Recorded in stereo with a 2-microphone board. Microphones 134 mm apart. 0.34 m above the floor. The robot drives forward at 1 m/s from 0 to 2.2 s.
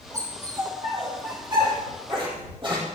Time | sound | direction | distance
0.1 | a dog barking | 30° right (ahead or behind) | 7 m